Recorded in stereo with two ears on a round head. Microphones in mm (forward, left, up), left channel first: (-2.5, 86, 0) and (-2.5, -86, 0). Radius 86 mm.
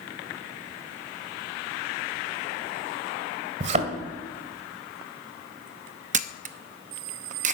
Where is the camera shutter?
40° right (ahead or behind), 0.7 m.